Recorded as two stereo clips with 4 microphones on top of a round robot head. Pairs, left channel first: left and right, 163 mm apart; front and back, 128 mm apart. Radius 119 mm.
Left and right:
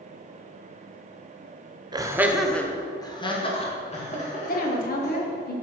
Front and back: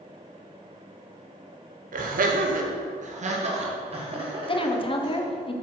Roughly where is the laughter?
Behind right.